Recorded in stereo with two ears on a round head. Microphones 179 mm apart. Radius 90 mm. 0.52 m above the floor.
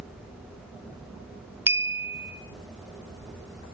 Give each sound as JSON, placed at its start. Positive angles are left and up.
{"t": 1.7, "sound": "a clink", "side_deg": -10, "distance_m": 0.7}